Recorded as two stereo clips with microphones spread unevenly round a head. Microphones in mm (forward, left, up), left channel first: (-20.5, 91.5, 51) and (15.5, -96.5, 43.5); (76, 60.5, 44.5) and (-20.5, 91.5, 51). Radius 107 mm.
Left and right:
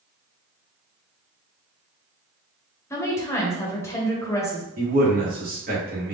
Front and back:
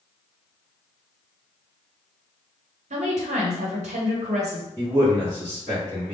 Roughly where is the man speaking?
Behind right.